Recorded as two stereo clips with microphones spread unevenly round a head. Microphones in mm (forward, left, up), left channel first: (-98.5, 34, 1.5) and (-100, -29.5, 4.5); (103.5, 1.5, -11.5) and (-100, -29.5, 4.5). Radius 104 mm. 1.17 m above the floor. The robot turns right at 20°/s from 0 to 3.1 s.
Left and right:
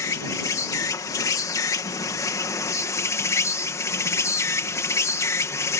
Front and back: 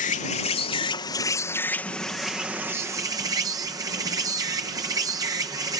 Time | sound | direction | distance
0.0 | an insect | 55° left | ?